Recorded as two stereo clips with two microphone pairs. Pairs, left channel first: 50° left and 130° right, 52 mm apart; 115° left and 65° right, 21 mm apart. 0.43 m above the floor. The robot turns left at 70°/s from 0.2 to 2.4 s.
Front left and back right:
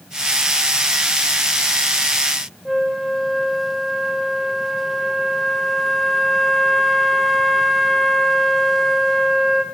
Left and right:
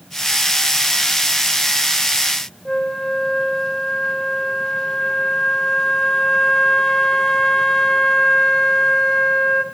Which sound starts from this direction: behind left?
A flute, at 2.6 s.